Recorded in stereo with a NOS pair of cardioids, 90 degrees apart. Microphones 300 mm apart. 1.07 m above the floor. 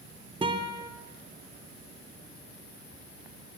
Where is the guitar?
15° right, 2.5 m.